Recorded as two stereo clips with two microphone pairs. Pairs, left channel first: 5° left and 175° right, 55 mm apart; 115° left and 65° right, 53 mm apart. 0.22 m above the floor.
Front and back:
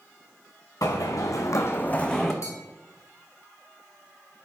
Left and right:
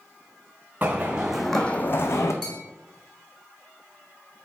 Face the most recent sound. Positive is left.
turn(degrees=30)